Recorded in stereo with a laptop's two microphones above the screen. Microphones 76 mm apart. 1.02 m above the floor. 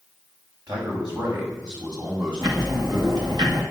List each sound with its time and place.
0.7 s a man speaking: 70° right (ahead or behind), 5 m; by 3.4 s 60° right (ahead or behind), 7 m
2.4 s ticking: 65° right (ahead or behind), 1.8 m